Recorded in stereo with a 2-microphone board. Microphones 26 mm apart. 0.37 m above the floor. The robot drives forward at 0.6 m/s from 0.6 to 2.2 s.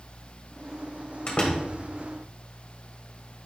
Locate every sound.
1.3 s a door slam: 50° left (ahead or behind), 1.5 m; by 1.6 s 45° left (ahead or behind), 1.5 m